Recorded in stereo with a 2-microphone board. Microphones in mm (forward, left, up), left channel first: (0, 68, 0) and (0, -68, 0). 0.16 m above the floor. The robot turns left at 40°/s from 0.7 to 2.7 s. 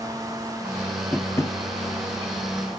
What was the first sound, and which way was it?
Tapping, 15° left (ahead or behind).